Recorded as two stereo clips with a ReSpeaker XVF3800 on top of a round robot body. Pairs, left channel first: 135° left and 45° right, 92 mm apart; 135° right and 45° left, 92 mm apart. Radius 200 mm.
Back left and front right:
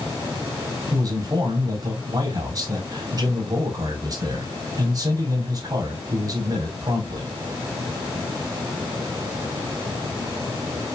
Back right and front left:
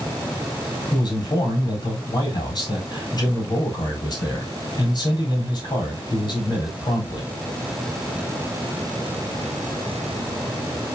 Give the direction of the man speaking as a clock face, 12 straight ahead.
3 o'clock.